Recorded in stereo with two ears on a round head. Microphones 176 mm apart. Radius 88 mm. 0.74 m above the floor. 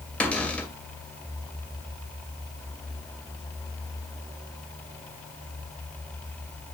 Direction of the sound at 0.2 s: 5° left (ahead or behind).